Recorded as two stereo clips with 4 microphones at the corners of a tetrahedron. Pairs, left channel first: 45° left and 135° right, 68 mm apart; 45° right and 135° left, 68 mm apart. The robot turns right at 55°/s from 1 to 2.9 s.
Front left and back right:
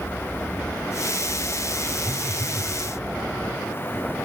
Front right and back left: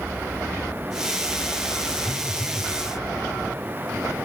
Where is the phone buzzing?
10° left, 1.3 m; by 2.7 s 50° left, 1.3 m.